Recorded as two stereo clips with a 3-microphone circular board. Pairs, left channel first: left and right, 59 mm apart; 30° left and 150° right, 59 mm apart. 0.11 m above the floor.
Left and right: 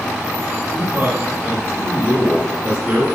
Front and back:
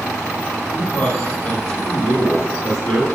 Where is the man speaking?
30° right, 4 m.